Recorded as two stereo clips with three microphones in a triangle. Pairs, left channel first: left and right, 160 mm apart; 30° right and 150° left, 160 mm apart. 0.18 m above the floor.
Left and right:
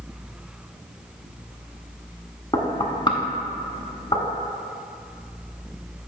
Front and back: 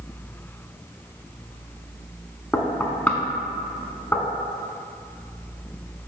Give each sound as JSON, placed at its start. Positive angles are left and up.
{"t": 2.5, "sound": "knocking", "azimuth_deg": 45, "distance_m": 0.9}